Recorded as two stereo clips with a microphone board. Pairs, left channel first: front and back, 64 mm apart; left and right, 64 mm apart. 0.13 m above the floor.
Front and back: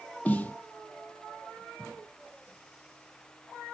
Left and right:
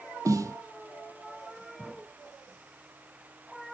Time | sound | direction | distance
0.2 | a snare drum | 65° right | 0.6 m